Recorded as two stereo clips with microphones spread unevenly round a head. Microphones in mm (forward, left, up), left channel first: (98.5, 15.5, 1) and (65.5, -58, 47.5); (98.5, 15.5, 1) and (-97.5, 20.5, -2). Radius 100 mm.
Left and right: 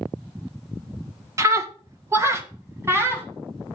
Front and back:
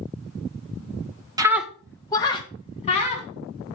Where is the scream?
110° right, 0.7 m; by 3.3 s 60° right, 2 m.